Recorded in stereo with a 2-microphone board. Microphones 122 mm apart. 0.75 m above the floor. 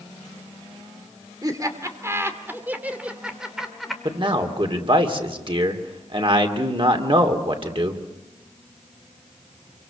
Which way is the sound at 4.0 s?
45° right (ahead or behind).